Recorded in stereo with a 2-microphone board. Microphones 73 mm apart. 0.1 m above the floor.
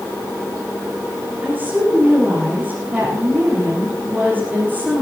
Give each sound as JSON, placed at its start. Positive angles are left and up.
{"t": 1.4, "sound": "a woman speaking", "side_deg": -25, "distance_m": 5.5}